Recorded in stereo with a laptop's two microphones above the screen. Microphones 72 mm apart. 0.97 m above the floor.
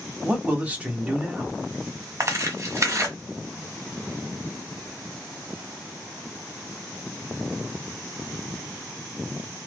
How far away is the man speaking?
About 1.2 m.